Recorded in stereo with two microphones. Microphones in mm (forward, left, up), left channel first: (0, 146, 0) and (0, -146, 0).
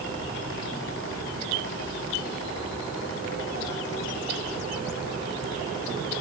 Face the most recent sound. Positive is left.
No sound to turn to.